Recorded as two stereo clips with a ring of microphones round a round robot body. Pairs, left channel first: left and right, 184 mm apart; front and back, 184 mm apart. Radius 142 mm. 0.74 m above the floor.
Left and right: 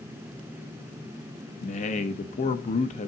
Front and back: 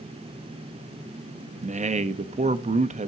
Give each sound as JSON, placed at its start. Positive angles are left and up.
{"t": 1.6, "sound": "a man speaking", "azimuth_deg": 135, "distance_m": 0.7}